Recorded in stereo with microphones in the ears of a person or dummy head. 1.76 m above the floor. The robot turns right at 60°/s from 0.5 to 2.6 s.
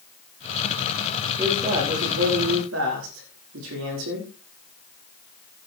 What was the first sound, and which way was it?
A man speaking, 170° right.